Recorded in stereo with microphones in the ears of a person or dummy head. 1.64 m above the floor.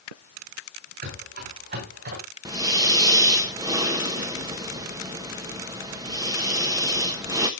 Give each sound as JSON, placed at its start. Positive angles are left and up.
{"t": 1.0, "sound": "running footsteps", "side_deg": -50, "distance_m": 9.0}
{"t": 2.5, "sound": "breathing", "side_deg": -20, "distance_m": 1.4}